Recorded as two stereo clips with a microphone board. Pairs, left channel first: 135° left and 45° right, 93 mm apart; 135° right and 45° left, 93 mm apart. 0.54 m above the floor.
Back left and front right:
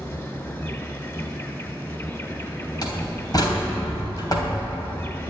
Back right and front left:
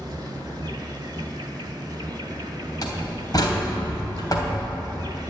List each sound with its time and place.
0.0 s an insect: 85° left, 1.9 m
2.8 s a door slam: straight behind, 3 m